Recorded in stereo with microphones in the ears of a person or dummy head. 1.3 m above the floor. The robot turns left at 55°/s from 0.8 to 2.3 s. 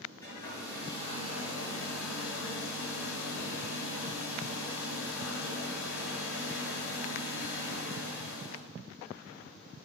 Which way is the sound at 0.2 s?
160° left.